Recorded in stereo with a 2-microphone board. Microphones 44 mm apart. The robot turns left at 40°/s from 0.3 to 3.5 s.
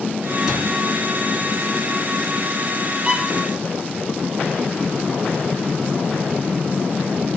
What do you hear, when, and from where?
0.5 s a cupboard door: 15° right (ahead or behind), 3 m; by 0.7 s 20° right (ahead or behind), 3 m
3.0 s a violin: 30° right (ahead or behind), 0.8 m